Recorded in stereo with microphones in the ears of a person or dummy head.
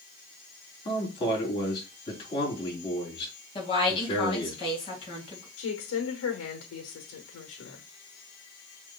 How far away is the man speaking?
About 3.5 m.